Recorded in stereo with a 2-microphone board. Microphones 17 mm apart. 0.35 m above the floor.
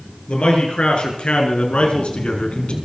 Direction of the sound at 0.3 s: 75° left (ahead or behind).